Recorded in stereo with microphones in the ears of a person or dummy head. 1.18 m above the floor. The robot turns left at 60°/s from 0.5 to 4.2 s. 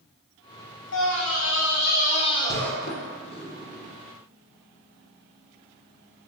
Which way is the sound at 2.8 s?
60° left (ahead or behind).